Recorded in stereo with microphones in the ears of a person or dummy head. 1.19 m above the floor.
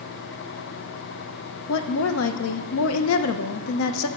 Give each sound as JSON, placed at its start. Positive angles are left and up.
{"t": 1.7, "sound": "a woman speaking", "side_deg": 80, "distance_m": 0.5}